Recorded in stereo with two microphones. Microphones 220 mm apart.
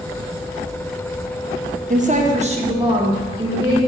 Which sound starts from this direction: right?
A woman speaking, at 1.9 s.